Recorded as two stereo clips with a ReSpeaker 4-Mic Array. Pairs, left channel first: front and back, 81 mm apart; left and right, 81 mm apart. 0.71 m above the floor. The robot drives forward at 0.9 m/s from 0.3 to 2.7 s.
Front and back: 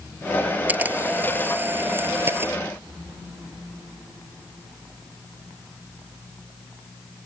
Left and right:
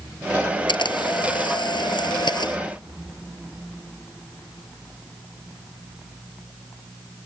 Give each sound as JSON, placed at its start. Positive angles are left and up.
{"t": 0.7, "sound": "a camera shutter", "azimuth_deg": 110}